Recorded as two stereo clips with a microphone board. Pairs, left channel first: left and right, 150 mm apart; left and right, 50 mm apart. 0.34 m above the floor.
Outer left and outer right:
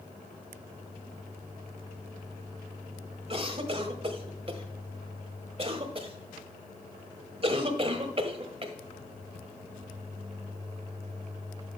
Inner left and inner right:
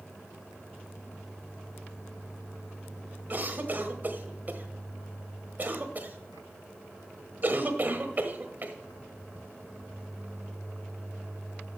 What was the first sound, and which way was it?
A cough, 40° right (ahead or behind).